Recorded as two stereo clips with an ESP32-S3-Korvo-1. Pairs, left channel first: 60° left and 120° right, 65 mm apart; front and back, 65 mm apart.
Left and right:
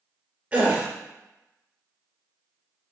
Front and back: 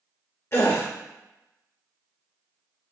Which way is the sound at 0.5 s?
50° right.